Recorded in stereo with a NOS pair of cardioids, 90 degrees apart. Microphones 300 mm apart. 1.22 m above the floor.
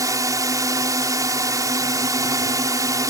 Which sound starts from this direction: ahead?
A drone, at 0.0 s.